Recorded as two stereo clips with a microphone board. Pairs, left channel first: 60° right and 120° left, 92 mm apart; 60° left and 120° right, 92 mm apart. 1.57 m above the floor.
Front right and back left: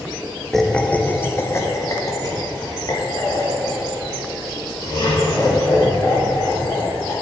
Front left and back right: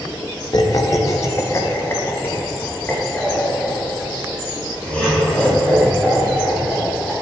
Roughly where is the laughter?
Ahead left.